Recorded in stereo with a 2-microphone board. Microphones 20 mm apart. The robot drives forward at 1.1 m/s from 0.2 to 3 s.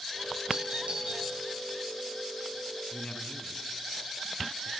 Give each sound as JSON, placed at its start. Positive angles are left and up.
{"t": 0.5, "sound": "a doorbell", "side_deg": -75, "distance_m": 8.5}
{"t": 2.9, "sound": "a man speaking", "side_deg": 60, "distance_m": 2.5}